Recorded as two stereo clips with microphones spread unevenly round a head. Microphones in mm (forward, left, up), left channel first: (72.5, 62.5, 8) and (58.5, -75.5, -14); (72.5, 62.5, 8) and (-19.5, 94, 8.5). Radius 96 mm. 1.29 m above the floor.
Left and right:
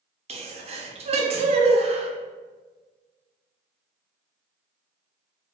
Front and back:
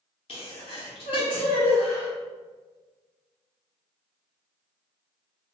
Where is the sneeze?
60° right, 0.6 m.